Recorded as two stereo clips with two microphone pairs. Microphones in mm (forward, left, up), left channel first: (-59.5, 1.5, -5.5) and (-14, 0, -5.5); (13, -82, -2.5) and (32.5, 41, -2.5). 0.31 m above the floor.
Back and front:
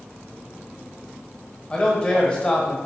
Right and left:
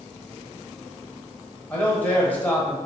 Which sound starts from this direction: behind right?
A man speaking, at 1.7 s.